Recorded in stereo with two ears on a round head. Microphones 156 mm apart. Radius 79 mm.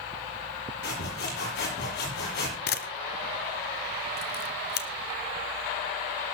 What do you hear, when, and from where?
0.8 s sawing: 70° left (ahead or behind), 8 m
2.7 s a camera shutter: 60° left (ahead or behind), 1.2 m